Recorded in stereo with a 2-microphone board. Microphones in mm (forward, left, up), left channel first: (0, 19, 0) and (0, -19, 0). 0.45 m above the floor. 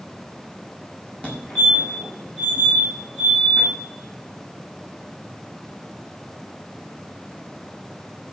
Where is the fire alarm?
35° left (ahead or behind), 5 m.